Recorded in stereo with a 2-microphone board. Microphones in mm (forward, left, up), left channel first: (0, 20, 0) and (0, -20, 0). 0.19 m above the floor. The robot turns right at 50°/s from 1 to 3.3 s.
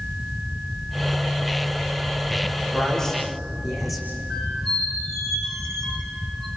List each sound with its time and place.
2.7 s a man speaking: 25° left (ahead or behind), 9.5 m; by 4.1 s 5° right (ahead or behind), 9.5 m
4.3 s a squeak: 5° left (ahead or behind), 7 m